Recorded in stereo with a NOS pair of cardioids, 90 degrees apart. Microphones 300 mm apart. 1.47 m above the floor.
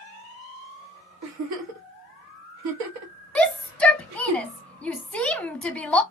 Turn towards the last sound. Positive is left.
turn(degrees=5)